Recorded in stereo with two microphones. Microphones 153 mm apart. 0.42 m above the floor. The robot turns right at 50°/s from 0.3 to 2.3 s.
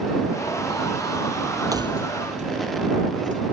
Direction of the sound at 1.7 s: 25° right (ahead or behind).